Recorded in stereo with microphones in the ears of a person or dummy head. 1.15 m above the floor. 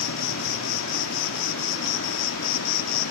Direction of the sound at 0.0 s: 75° left (ahead or behind).